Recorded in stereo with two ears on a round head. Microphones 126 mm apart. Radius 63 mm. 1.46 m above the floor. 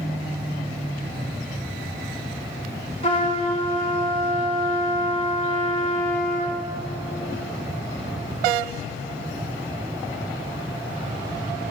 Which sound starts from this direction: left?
A trumpet, at 3.0 s.